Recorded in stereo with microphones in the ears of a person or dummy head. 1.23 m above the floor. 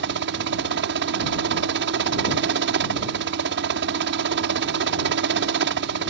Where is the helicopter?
65° right (ahead or behind).